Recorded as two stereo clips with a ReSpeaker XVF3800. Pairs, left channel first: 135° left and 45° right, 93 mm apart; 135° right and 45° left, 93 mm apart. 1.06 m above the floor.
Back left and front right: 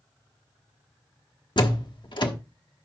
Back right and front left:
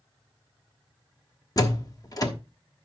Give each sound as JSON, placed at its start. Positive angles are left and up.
{"t": 1.6, "sound": "a door slam", "azimuth_deg": 175, "distance_m": 1.2}